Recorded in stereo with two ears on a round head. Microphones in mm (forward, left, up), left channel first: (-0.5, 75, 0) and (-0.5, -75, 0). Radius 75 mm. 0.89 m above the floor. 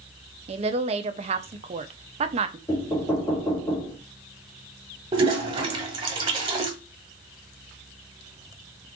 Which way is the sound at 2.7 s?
20° left (ahead or behind).